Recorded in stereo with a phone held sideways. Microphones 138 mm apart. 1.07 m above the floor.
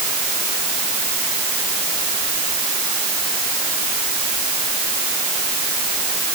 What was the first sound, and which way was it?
Only background noise.